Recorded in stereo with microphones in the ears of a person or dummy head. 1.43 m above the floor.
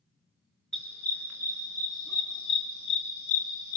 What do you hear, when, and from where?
0.7 s a dog barking: centre (ahead or behind), 5.5 m; by 3.8 s 55° left (ahead or behind), 4 m